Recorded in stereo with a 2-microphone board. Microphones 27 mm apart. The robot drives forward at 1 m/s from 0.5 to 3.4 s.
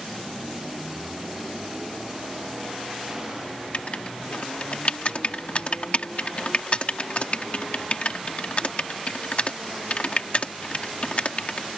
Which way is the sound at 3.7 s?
50° left (ahead or behind).